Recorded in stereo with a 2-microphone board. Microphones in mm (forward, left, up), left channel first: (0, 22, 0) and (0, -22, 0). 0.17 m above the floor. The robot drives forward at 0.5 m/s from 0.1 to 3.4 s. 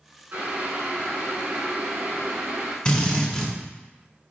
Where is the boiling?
45° right (ahead or behind), 1.8 m; by 2.8 s 40° right (ahead or behind), 2 m.